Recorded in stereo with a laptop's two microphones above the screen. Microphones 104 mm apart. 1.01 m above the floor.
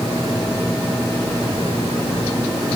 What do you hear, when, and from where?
Only background noise.